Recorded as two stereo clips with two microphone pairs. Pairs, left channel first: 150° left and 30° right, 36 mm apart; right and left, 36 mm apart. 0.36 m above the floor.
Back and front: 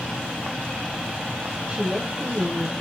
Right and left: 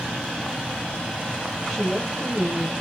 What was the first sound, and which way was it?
A woman speaking, 5° right.